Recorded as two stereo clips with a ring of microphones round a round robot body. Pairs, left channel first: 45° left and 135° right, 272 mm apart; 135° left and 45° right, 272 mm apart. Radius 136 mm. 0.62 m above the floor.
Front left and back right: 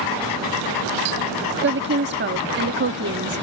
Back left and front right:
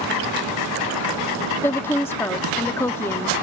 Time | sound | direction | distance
1.6 | a woman speaking | 150° right | ?